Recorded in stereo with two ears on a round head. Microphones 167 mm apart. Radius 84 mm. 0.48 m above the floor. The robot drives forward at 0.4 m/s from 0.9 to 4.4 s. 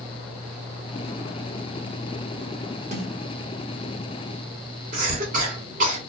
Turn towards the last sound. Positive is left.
turn(degrees=-45)  # may be behind; listen again after turning